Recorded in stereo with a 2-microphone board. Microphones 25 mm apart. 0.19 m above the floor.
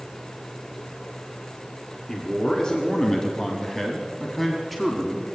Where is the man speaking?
30° left (ahead or behind), 1.9 m; by 5.2 s centre (ahead or behind), 1.8 m.